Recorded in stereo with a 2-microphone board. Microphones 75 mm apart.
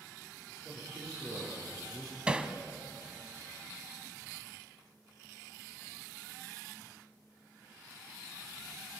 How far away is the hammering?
About 1.0 m.